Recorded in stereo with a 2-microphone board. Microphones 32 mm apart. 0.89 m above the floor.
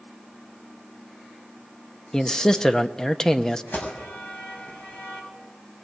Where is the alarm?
80° left, 6 m.